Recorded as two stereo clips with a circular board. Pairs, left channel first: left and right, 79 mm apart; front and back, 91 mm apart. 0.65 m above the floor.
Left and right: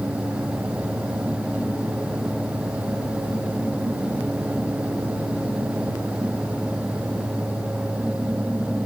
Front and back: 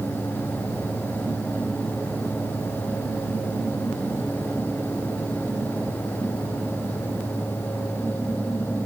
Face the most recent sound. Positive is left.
No sound to turn to.